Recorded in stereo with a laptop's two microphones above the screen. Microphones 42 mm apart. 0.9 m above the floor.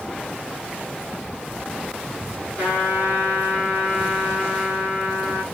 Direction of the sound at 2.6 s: 50° left (ahead or behind).